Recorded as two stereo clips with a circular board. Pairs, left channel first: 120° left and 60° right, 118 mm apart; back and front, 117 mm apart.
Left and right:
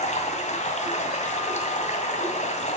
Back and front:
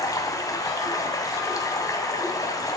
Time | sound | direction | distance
0.0 | running water | 120° left | 2.0 m